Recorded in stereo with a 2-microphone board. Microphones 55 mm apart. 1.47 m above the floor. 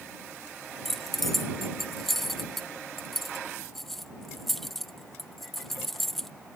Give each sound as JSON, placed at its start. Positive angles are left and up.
{"t": 0.8, "sound": "keys jangling", "side_deg": 5}